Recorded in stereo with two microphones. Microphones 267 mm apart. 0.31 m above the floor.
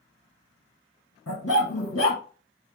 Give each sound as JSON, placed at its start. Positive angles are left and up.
{"t": 1.3, "sound": "a dog barking", "side_deg": 65, "distance_m": 1.7}